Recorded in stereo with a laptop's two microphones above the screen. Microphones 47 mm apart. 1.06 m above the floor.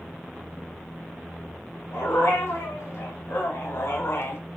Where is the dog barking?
85° left, 4 m; by 4.4 s 60° left (ahead or behind), 1.1 m.